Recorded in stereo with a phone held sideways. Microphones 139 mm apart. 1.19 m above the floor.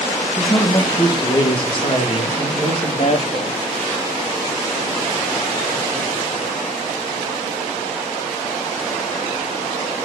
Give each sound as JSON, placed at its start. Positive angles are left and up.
{"t": 0.4, "sound": "a man speaking", "side_deg": 20, "distance_m": 1.3}